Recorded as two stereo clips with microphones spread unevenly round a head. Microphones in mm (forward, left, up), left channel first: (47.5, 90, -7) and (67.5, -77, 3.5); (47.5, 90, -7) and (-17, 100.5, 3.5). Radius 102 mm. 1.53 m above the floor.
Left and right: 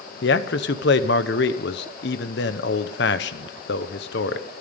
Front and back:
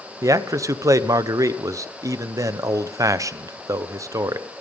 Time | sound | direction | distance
0.2 | a man speaking | 130° left | 0.9 m